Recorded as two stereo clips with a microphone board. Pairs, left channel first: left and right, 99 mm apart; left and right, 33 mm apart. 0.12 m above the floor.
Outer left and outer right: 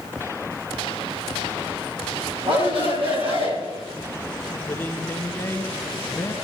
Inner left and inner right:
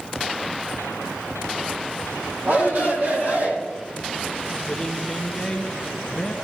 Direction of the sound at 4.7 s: 20° left (ahead or behind).